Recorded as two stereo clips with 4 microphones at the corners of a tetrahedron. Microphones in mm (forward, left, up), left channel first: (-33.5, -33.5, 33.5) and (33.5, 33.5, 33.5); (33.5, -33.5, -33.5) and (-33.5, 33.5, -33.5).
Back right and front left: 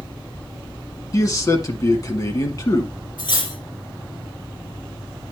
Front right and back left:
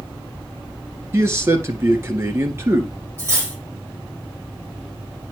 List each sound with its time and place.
1.1 s a man speaking: 175° right, 1.5 m
3.2 s cutlery clinking: 165° right, 3 m